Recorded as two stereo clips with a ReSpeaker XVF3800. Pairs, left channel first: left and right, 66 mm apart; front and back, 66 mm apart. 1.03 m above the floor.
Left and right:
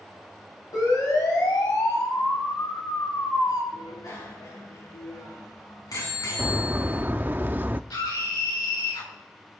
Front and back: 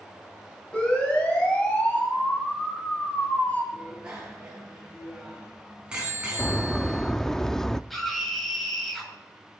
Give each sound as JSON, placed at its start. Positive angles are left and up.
{"t": 0.7, "sound": "a siren", "azimuth_deg": 75, "distance_m": 6.0}
{"t": 3.7, "sound": "a bicycle bell", "azimuth_deg": 105, "distance_m": 7.0}
{"t": 6.4, "sound": "a bird", "azimuth_deg": -75, "distance_m": 0.5}
{"t": 7.9, "sound": "a scream", "azimuth_deg": 90, "distance_m": 5.5}